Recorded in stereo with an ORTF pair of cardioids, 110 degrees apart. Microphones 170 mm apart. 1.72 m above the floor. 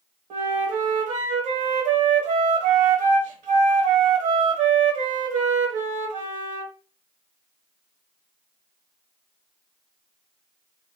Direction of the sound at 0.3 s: 55° right.